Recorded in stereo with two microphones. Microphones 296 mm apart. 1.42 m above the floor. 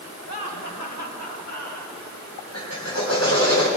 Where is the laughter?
85° left, 4 m; by 2.0 s 90° left, 6.5 m.